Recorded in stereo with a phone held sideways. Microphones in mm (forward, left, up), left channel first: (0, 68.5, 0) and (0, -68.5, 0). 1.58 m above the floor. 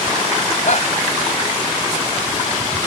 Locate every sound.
0.6 s a shout: 60° left (ahead or behind)